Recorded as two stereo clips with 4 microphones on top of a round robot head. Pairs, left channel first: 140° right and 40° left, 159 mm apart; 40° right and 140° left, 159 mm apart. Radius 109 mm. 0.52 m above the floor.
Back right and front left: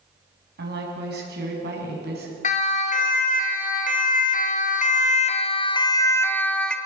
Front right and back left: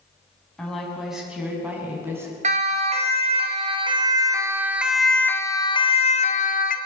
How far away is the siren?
About 3.5 m.